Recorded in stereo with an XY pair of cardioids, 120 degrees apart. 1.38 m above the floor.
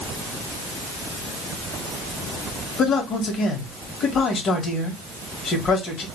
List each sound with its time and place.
2.8 s a man speaking: 55° left, 1.8 m